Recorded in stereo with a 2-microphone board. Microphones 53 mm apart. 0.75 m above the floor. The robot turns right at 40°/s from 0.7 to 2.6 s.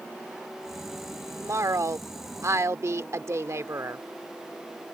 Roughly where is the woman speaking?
Behind right.